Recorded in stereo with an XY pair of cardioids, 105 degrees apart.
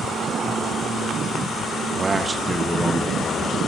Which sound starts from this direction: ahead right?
A man speaking, at 1.7 s.